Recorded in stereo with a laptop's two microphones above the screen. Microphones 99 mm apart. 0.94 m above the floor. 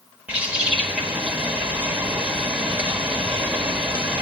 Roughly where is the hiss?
I don't hear a hiss.